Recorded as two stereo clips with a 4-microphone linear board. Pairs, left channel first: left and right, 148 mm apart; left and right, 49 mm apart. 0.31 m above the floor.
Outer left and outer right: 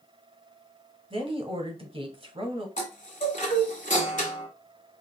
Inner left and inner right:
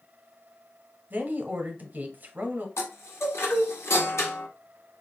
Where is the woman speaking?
40° right (ahead or behind), 1.1 m.